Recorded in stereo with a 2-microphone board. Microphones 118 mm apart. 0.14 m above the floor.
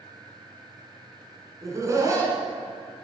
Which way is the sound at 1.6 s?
30° right (ahead or behind).